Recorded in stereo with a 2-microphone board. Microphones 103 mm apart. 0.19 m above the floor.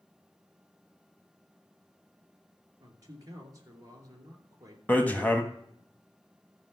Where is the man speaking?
35° right (ahead or behind), 2.5 m.